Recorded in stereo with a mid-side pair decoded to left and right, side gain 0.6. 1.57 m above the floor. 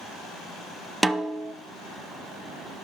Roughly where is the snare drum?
Ahead.